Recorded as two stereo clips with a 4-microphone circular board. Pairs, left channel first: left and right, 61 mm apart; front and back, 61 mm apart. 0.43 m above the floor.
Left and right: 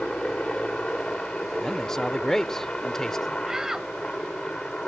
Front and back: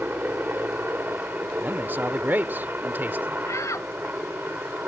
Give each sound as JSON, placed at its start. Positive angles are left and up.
{"t": 0.0, "sound": "a helicopter", "azimuth_deg": 155}
{"t": 1.6, "sound": "a man speaking", "azimuth_deg": 165}
{"t": 3.5, "sound": "a shout", "azimuth_deg": -10}